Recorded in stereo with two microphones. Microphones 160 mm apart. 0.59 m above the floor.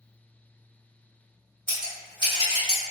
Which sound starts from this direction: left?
Scissors, at 1.7 s.